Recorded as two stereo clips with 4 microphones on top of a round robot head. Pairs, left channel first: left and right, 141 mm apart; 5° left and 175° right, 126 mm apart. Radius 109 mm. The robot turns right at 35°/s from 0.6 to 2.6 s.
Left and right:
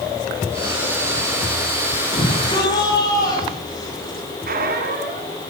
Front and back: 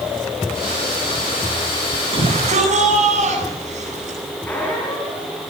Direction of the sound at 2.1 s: 140° left.